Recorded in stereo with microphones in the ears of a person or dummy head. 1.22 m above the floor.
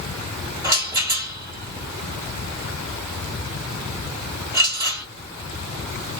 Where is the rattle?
20° right (ahead or behind), 1.7 m.